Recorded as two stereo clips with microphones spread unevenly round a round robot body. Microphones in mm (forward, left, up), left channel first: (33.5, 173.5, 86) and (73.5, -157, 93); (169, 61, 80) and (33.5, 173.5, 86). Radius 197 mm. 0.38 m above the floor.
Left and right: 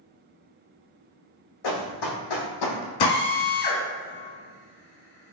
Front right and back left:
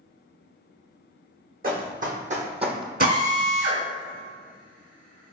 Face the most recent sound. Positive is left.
turn(degrees=110)